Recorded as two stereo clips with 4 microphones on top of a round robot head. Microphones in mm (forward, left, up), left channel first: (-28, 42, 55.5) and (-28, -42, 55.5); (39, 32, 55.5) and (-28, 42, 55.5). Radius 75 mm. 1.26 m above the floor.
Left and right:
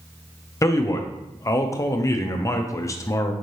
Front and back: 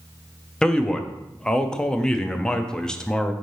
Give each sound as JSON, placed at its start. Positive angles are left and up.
{"t": 0.6, "sound": "a man speaking", "azimuth_deg": 65, "distance_m": 0.5}